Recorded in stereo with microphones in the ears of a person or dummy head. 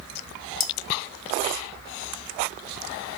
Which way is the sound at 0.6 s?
45° left (ahead or behind).